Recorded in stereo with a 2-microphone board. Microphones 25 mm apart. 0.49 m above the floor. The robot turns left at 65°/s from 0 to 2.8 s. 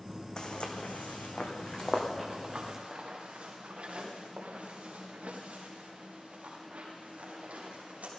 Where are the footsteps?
30° left (ahead or behind), 1.7 m; by 8.1 s 65° right (ahead or behind), 5.5 m.